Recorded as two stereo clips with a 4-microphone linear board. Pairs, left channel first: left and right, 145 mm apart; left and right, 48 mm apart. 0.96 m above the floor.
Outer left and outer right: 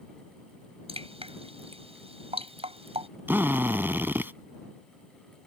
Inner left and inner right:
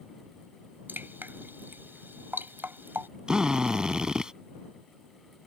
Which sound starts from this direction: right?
Dripping, at 0.9 s.